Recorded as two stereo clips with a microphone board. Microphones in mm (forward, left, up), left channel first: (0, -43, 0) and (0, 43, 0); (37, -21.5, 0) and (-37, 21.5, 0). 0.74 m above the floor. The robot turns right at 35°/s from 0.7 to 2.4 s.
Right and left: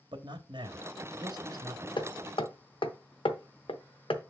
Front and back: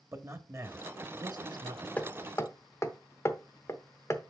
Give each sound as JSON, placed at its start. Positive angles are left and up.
{"t": 0.1, "sound": "a man speaking", "azimuth_deg": 95, "distance_m": 1.1}
{"t": 2.0, "sound": "hammering", "azimuth_deg": -105, "distance_m": 0.8}